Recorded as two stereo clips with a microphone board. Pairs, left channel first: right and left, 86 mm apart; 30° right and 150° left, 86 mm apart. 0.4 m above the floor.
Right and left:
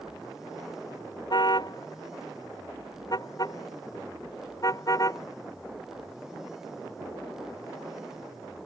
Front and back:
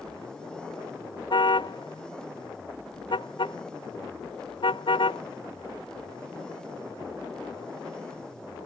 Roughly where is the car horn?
Ahead right.